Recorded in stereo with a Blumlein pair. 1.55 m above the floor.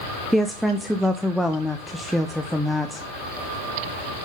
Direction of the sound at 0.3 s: Straight ahead.